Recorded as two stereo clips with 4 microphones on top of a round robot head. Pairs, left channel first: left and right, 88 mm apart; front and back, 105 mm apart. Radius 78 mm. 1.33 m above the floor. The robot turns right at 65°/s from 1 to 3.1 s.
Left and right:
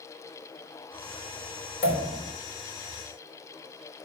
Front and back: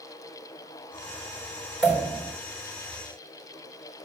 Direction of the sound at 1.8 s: 100° left.